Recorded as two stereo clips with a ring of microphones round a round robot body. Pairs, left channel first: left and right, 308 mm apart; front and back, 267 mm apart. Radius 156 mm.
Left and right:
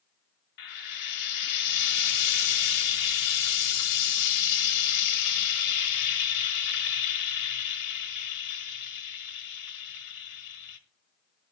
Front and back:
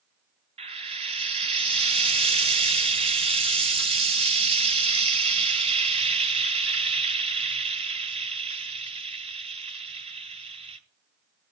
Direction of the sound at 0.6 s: 110° left.